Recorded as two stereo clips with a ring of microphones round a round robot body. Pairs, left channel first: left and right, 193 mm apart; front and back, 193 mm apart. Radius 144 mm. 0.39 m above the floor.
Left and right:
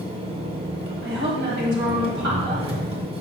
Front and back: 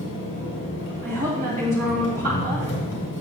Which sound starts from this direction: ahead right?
An engine running, at 0.0 s.